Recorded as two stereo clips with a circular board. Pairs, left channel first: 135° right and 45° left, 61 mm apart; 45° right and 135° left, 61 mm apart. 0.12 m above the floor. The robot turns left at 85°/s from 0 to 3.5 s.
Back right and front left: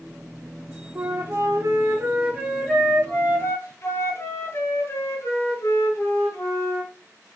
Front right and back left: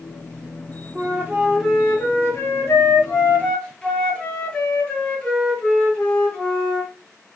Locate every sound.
0.9 s a flute: 105° left, 1.1 m; by 6.9 s 115° right, 1.1 m